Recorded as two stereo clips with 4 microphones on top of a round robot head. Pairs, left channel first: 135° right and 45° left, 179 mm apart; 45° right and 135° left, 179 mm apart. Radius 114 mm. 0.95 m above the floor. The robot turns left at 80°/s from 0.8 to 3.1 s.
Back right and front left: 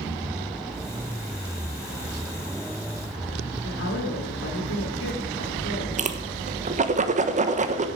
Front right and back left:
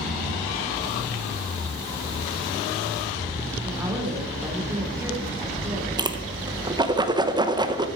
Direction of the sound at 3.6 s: 150° right.